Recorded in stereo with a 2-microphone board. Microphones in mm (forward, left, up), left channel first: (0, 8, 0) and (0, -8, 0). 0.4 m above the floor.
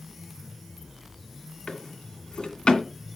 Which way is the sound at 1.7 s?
65° left (ahead or behind).